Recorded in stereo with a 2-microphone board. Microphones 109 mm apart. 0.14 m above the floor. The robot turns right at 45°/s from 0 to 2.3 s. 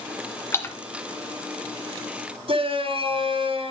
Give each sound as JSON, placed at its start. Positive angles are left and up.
{"t": 0.5, "sound": "a splash", "side_deg": 20, "distance_m": 1.6}
{"t": 2.5, "sound": "a shout", "side_deg": -55, "distance_m": 2.5}